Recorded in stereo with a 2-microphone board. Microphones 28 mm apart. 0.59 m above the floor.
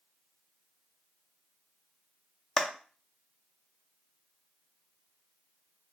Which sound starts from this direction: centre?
A clap, at 2.6 s.